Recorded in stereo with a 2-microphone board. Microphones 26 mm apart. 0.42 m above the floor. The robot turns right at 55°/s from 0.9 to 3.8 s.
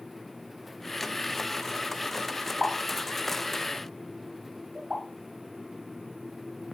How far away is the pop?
About 1.3 m.